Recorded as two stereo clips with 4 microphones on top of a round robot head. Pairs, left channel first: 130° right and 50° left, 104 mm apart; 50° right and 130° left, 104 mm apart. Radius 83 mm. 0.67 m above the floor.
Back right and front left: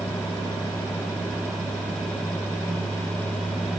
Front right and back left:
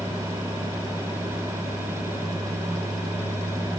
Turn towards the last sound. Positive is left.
No sound to turn to.